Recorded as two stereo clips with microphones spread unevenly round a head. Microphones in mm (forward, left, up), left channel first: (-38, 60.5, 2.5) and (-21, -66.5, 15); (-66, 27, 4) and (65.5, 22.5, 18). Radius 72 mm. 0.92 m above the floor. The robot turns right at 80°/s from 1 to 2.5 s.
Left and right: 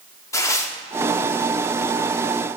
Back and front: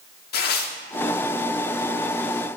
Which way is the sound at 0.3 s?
165° left.